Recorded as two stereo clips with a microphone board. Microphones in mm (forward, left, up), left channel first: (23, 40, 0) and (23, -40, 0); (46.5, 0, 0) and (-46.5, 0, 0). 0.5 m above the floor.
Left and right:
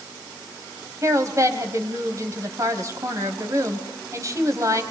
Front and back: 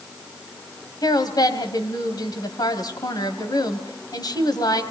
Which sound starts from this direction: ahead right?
A woman speaking, at 1.0 s.